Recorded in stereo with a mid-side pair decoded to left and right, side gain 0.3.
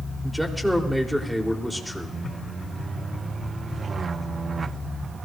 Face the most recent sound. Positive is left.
turn(degrees=-5)